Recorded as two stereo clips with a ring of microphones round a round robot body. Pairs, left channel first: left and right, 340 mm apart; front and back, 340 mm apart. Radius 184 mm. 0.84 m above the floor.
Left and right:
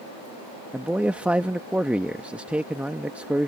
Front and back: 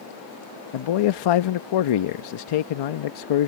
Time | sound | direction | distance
0.7 | a man speaking | 5° right | ?